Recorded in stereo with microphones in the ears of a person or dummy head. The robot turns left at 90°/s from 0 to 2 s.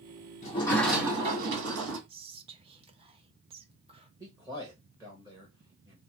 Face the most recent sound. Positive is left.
turn(degrees=-10)  # may be behind; listen again after turning